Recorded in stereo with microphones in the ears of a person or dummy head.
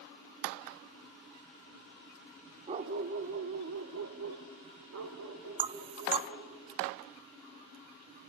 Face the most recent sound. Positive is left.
turn(degrees=-30)  # may be behind; listen again after turning